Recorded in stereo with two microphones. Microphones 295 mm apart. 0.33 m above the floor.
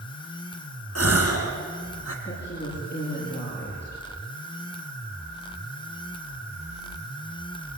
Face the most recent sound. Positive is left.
turn(degrees=35)  # may be behind; listen again after turning